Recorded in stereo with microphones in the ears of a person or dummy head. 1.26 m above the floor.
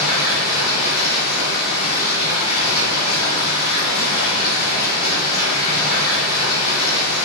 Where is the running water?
45° left (ahead or behind), 1.6 m.